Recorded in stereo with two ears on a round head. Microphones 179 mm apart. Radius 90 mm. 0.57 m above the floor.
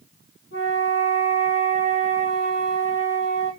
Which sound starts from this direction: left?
A flute, at 0.5 s.